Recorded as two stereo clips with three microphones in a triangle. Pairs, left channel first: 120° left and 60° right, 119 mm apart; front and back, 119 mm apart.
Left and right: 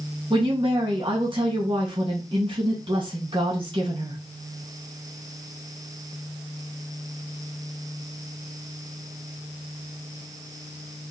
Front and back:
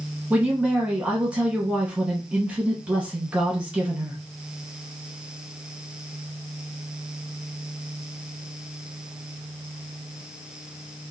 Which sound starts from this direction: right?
A woman speaking, at 0.3 s.